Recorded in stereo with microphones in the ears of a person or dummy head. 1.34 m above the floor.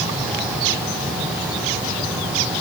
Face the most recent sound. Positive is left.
No sound to turn to.